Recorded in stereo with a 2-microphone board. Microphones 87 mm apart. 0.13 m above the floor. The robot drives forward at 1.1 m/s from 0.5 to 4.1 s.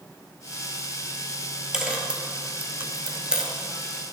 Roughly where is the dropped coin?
Centre.